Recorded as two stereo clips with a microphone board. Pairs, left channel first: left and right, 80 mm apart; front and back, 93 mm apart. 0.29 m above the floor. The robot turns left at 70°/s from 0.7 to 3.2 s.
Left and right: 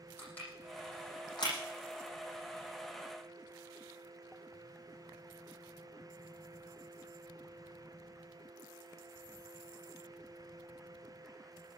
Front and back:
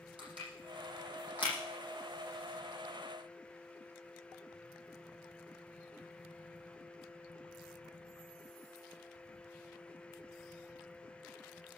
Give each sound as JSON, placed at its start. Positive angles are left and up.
{"t": 0.2, "sound": "crushing", "azimuth_deg": 160, "distance_m": 9.0}